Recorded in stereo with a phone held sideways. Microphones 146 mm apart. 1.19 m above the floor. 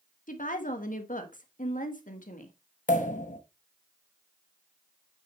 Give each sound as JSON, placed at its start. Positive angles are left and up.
{"t": 0.3, "sound": "a woman speaking", "side_deg": 65, "distance_m": 1.4}
{"t": 2.9, "sound": "a pop", "side_deg": 60, "distance_m": 1.0}